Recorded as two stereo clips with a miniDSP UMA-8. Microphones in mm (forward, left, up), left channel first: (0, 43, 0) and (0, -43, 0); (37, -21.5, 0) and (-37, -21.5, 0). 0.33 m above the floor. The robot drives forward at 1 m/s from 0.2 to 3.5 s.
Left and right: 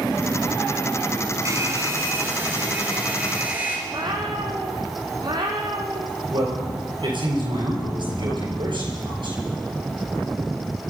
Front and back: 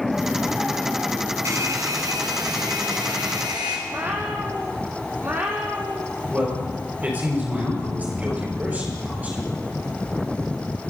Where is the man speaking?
115° right, 5 m.